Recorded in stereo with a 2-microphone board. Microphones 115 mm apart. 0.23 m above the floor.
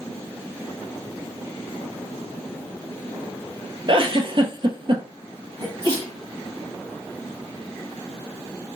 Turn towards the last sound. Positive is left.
turn(degrees=-40)  # may be behind; listen again after turning